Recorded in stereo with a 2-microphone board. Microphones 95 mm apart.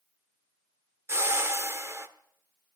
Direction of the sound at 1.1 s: 25° right (ahead or behind).